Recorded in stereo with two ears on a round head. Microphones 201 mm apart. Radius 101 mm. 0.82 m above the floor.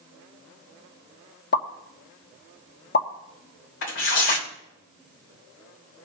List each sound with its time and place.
1.5 s a pop: 45° left (ahead or behind), 1.4 m
3.8 s tearing paper: 60° left (ahead or behind), 3 m